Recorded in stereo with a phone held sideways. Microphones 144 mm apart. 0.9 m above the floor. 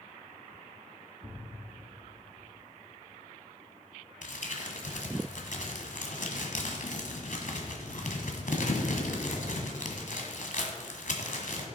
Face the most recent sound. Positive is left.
turn(degrees=65)  # may be behind; listen again after turning